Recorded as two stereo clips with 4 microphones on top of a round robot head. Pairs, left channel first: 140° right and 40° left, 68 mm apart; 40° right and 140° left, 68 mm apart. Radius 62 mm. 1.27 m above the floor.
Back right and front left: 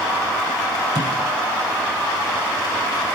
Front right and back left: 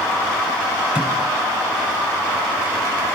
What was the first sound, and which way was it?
A thud, 65° left.